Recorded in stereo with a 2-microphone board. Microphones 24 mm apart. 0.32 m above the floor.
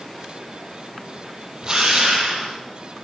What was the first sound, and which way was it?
A drill, 25° right (ahead or behind).